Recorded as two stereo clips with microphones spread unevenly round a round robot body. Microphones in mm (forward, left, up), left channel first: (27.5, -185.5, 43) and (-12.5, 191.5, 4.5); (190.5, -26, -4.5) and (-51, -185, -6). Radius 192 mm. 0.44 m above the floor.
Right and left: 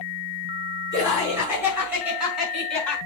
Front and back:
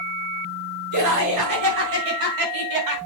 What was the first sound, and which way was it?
Laughter, 175° left.